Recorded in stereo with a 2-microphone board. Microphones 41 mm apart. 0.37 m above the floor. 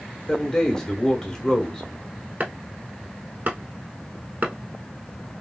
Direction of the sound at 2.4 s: 45° right (ahead or behind).